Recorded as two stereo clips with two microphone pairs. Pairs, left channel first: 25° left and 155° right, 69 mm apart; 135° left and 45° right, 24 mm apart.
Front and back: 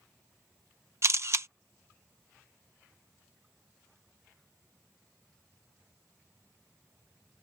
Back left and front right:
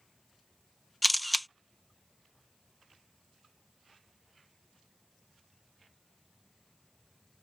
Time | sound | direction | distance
1.0 | a camera shutter | 135° right | ?